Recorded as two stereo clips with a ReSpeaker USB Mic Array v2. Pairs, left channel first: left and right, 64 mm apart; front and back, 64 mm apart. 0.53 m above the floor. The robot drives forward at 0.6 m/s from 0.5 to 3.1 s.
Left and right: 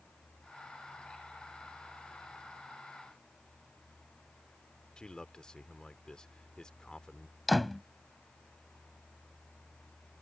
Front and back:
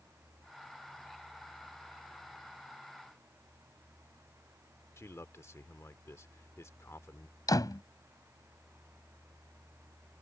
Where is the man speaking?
15° left.